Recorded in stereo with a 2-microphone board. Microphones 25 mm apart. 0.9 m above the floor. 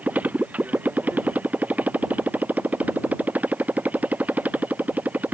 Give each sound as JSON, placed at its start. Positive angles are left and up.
{"t": 0.0, "sound": "a motorcycle", "side_deg": -80}